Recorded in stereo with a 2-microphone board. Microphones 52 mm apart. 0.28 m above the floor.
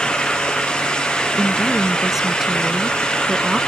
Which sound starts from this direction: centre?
A woman speaking, at 1.4 s.